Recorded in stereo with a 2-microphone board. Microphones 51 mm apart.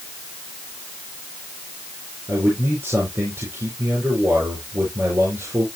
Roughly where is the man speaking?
Right.